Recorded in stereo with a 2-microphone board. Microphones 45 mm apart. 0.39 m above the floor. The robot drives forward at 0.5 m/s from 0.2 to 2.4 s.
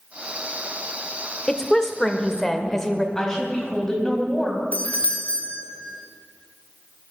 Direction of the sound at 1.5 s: 15° left (ahead or behind).